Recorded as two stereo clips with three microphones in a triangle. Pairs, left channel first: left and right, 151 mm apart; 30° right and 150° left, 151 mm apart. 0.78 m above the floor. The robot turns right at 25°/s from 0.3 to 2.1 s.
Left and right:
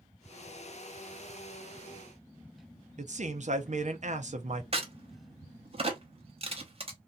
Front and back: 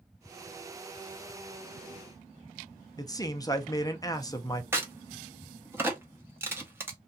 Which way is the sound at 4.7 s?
135° right.